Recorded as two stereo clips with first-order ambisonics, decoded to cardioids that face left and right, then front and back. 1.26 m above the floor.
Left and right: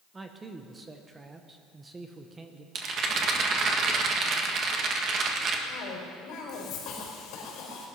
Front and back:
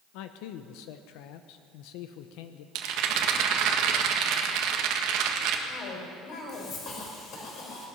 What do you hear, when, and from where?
0.1 s a man speaking: 15° right, 0.8 m
2.8 s a rattle: 150° right, 1.5 m
5.7 s a cough: 50° left, 4.5 m